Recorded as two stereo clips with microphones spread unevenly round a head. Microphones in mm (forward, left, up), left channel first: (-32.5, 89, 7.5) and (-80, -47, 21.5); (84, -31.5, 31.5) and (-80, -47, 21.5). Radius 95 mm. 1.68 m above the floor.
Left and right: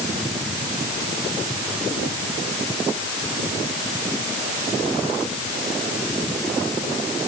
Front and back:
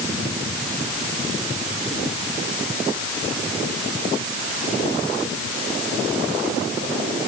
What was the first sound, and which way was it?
Only background noise.